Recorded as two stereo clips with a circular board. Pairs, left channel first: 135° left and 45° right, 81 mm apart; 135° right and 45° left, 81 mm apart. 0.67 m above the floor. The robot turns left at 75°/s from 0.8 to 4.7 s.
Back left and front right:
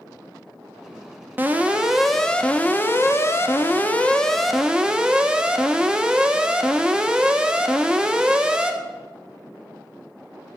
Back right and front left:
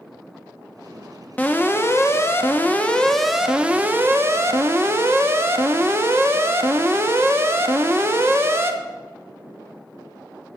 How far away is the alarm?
About 1.0 m.